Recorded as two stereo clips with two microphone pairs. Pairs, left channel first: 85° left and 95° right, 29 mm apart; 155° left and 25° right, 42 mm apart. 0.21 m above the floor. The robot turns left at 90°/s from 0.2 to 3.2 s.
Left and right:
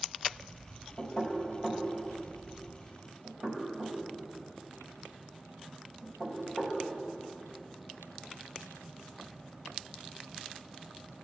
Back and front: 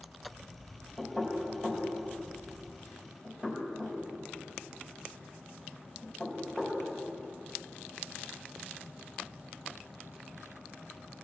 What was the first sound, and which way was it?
Knocking, 80° left.